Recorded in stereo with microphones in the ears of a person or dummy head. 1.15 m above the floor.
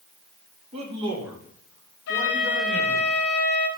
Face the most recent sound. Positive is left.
turn(degrees=60)  # may be behind; listen again after turning